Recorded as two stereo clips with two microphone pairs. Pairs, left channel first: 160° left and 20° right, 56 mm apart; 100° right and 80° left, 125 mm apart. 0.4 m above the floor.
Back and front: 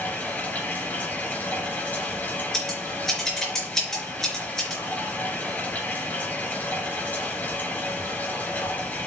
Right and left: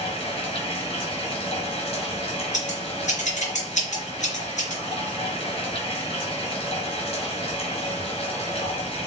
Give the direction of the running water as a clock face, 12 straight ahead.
5 o'clock.